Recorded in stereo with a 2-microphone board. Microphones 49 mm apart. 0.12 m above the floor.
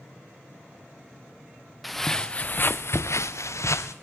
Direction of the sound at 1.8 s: Centre (ahead or behind).